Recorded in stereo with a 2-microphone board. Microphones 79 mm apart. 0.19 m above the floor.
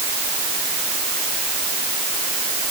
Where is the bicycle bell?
I don't hear a bicycle bell.